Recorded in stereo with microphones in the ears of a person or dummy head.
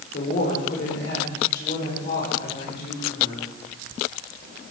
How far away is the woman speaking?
About 5.5 m.